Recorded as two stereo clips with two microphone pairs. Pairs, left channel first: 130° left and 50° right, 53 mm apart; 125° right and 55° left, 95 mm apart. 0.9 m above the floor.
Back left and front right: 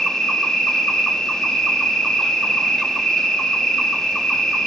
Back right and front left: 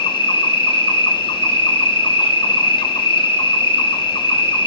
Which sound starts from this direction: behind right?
An insect, at 0.0 s.